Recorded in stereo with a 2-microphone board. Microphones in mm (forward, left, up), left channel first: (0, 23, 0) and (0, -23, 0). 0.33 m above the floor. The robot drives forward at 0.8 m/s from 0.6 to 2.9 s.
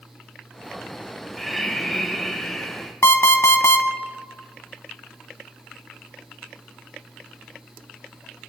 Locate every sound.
1.4 s breathing: centre (ahead or behind), 0.8 m
3.0 s an alarm clock: 70° left (ahead or behind), 1.2 m